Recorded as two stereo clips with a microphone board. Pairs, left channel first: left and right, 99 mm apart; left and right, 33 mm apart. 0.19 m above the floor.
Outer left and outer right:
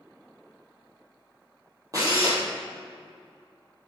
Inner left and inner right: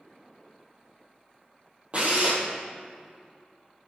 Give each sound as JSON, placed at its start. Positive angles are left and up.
{"t": 1.9, "sound": "a drill", "side_deg": -35, "distance_m": 2.0}